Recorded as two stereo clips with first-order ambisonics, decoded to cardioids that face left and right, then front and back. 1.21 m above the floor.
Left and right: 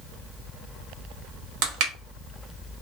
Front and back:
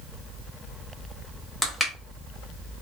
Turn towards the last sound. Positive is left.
turn(degrees=-85)